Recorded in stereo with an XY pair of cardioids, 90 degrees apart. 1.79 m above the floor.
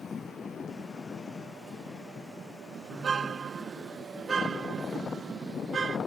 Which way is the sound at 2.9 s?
45° right.